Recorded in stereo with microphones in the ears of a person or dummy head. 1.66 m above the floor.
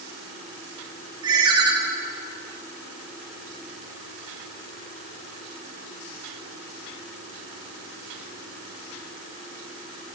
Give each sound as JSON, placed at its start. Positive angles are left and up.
{"t": 1.2, "sound": "a ringtone", "side_deg": -30, "distance_m": 1.5}